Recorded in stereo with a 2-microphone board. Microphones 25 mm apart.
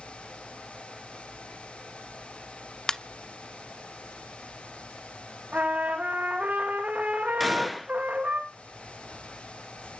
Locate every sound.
2.9 s a ringtone: 30° left (ahead or behind), 0.6 m
5.5 s a trumpet: 75° right (ahead or behind), 3 m
7.4 s a gunshot: 5° left (ahead or behind), 0.8 m